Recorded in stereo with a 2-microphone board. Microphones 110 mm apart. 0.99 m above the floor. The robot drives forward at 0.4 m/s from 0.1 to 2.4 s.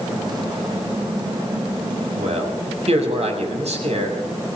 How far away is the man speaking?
About 6.5 m.